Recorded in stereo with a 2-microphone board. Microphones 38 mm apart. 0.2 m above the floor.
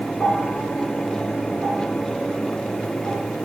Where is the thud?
I don't hear a thud.